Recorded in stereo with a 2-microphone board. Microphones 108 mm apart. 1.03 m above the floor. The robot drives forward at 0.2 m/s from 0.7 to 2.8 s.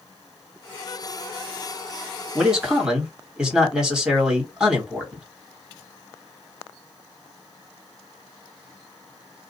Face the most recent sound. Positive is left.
turn(degrees=-10)  # may be behind; listen again after turning